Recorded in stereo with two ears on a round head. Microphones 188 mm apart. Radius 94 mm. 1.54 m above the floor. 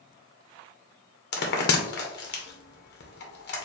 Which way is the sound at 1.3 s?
60° left (ahead or behind).